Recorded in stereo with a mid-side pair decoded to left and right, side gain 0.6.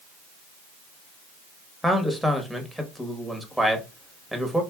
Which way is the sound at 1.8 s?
5° left.